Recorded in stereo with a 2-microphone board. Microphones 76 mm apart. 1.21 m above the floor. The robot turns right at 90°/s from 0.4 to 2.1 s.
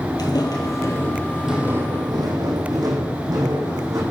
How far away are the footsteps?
About 2 m.